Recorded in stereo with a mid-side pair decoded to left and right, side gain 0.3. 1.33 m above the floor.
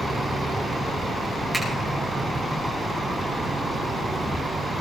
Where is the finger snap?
15° right, 9.5 m.